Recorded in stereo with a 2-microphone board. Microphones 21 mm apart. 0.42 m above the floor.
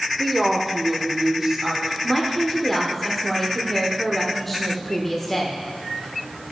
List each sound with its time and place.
0.2 s a woman speaking: 10° left (ahead or behind), 0.8 m; by 1.9 s 25° right (ahead or behind), 2 m
2.0 s a woman speaking: 10° left (ahead or behind), 0.8 m